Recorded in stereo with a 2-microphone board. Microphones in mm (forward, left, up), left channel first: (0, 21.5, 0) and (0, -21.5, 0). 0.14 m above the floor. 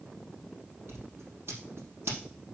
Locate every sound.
0.9 s scissors: 75° right (ahead or behind), 3.5 m